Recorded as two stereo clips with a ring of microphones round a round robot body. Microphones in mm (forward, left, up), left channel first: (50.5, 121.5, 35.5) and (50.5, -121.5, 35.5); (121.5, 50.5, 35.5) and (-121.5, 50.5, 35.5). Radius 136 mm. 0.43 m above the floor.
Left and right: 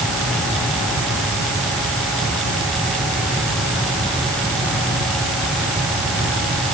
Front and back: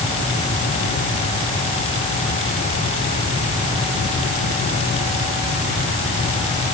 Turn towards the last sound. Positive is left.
No sound to turn to.